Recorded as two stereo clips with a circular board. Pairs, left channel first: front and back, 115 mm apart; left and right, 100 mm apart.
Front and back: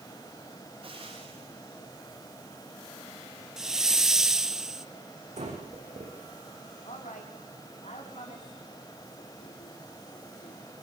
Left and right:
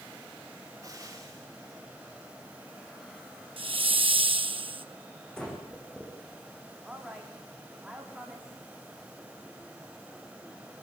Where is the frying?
145° right, 8.5 m.